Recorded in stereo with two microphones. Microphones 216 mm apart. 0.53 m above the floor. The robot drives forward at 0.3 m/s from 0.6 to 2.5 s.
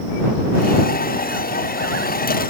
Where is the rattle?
No rattle in this recording.